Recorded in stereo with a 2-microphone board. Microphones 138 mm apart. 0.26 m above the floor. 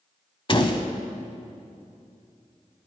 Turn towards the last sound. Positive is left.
turn(degrees=40)  # may be behind; listen again after turning